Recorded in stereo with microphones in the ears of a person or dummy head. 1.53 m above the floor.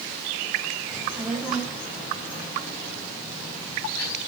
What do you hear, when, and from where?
0.9 s a child speaking: 5° right (ahead or behind), 3 m; by 4.2 s 15° left (ahead or behind), 6 m